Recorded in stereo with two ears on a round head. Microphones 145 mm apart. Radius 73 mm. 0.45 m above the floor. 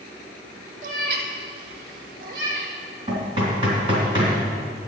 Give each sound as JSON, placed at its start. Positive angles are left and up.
{"t": 0.8, "sound": "a cat meowing", "side_deg": -50, "distance_m": 1.6}
{"t": 3.1, "sound": "knocking", "side_deg": -35, "distance_m": 3.0}